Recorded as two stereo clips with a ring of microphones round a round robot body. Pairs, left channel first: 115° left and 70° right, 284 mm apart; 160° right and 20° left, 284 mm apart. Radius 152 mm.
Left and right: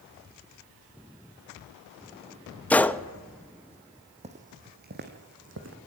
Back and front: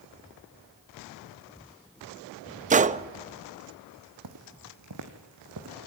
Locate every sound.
2.7 s a gunshot: 35° left, 0.6 m
4.2 s footsteps: straight ahead, 1.8 m; by 5.8 s 20° right, 2.5 m